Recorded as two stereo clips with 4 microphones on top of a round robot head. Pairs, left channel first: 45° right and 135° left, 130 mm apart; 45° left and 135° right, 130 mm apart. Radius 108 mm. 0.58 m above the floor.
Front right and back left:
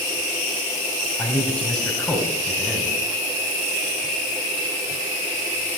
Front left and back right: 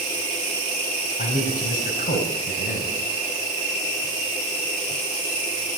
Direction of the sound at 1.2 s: 35° left.